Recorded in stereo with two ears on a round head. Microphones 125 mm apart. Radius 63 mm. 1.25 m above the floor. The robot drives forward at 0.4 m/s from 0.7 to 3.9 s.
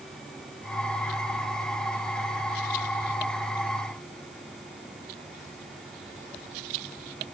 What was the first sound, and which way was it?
Only background noise.